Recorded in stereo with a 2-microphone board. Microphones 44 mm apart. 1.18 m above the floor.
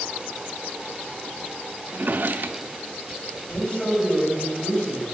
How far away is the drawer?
About 0.5 m.